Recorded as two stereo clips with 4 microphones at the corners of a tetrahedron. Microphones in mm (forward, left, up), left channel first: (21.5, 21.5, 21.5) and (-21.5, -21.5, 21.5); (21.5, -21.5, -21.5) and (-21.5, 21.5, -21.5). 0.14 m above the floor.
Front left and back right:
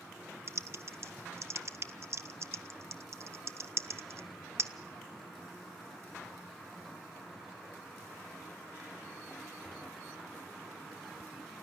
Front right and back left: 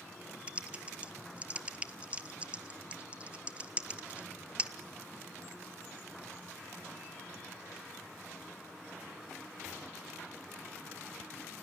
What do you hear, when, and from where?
0.5 s typing on a keyboard: 160° right, 0.7 m